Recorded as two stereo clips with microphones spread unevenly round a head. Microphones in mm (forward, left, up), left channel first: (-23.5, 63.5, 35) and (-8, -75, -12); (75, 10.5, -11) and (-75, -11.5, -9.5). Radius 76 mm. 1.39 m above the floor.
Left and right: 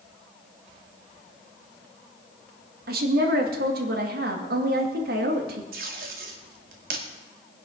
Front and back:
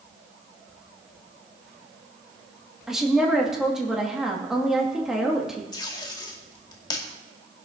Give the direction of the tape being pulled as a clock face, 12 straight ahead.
2 o'clock.